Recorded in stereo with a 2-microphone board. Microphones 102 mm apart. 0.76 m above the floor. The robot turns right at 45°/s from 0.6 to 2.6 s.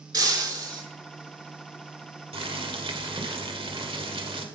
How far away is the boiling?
About 1.4 m.